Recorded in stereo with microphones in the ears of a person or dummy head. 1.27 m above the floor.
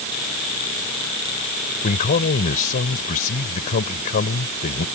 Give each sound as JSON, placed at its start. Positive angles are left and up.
{"t": 1.8, "sound": "a man speaking", "side_deg": 45}